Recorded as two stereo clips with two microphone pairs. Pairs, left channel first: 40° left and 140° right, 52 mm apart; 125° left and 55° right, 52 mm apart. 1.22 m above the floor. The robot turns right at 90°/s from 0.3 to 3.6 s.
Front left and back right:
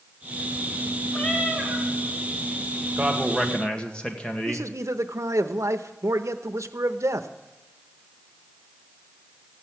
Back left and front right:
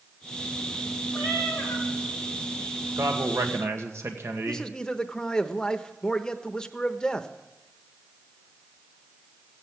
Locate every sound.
1.1 s a cat meowing: 125° left, 3 m; by 1.9 s 170° right, 3 m
3.0 s a man speaking: 90° right, 1.8 m; by 4.7 s 30° right, 1.8 m
4.5 s a man speaking: 160° right, 0.8 m